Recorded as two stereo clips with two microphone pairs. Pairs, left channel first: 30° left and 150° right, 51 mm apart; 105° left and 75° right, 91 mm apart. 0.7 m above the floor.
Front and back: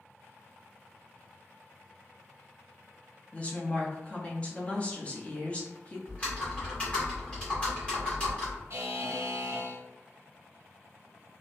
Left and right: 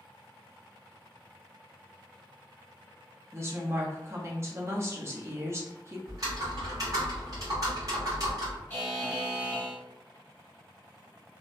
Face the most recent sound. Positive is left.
turn(degrees=180)